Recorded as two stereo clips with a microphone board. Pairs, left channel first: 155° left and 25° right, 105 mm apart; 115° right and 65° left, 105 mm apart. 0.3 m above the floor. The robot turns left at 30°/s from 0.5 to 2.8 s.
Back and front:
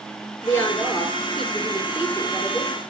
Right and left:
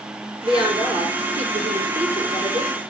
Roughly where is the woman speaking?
Left.